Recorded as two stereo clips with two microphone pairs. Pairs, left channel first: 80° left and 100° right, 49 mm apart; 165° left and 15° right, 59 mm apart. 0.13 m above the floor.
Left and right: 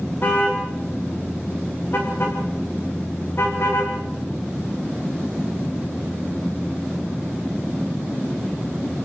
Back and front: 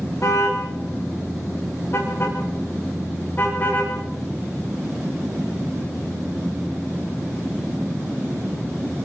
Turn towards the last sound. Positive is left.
turn(degrees=110)